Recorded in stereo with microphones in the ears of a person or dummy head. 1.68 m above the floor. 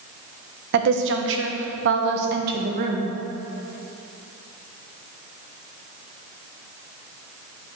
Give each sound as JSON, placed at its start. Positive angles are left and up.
{"t": 0.7, "sound": "a woman speaking", "side_deg": -55, "distance_m": 1.1}